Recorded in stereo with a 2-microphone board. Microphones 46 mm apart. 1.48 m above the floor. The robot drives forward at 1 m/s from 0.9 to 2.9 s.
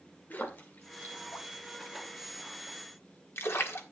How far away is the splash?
About 2.5 m.